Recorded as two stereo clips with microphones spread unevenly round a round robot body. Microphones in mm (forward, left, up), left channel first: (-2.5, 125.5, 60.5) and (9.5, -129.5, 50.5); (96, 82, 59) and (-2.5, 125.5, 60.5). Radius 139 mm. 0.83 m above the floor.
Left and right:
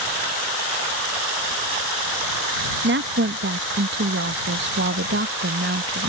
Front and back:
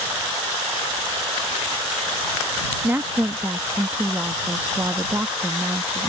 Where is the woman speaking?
130° right.